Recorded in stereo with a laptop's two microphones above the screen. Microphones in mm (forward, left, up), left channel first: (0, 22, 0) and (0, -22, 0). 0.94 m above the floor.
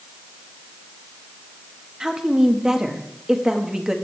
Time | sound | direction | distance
2.0 | a woman speaking | 15° right (ahead or behind) | 1.4 m